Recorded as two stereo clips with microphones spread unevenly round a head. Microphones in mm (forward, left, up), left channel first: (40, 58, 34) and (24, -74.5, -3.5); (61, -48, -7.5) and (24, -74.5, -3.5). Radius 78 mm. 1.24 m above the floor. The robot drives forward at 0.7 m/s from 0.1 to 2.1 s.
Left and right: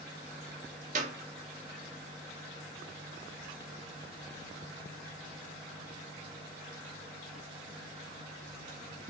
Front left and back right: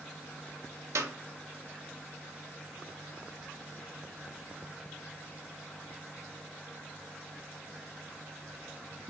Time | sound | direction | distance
0.9 | a clap | 145° right | 1.0 m